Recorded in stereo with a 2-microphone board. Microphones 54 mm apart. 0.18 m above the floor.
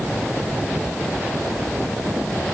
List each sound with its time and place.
Only background noise.